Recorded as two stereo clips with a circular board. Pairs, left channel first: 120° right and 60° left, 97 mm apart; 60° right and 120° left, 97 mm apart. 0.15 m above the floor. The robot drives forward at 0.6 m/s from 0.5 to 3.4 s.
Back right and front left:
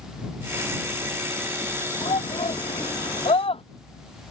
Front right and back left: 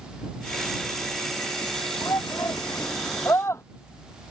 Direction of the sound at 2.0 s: 115° right.